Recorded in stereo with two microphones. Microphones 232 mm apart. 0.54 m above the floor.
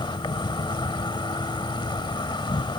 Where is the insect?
20° left (ahead or behind).